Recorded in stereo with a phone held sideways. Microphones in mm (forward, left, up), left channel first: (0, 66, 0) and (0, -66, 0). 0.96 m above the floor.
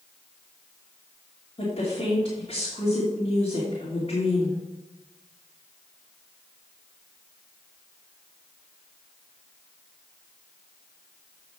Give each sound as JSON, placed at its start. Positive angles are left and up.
{"t": 1.6, "sound": "a woman speaking", "side_deg": 50, "distance_m": 3.0}